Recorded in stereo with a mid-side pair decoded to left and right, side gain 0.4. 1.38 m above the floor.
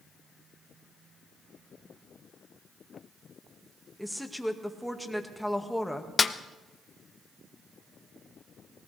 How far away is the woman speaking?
About 1.9 m.